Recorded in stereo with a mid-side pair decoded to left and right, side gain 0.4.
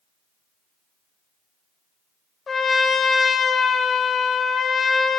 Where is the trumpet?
45° left, 1.2 m.